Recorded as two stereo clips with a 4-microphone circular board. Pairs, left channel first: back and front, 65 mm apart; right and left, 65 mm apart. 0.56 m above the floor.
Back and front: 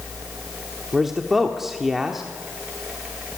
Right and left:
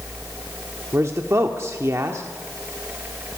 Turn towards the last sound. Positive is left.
turn(degrees=85)